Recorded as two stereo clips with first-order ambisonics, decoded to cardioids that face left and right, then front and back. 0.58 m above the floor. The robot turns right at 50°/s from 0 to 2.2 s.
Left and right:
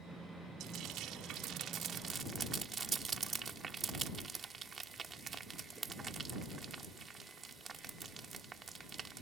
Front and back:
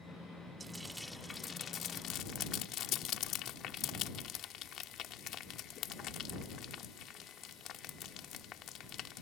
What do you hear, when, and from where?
0.6 s frying: 110° right; by 9.2 s 30° right